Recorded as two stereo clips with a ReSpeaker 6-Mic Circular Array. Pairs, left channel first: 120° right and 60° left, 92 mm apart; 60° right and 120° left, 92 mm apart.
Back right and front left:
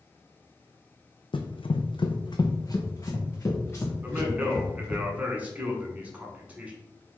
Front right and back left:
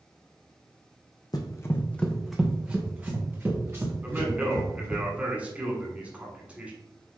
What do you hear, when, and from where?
1.3 s running footsteps: 105° right, 0.6 m; by 5.0 s 170° left, 2 m
4.0 s a man speaking: 85° left, 1.1 m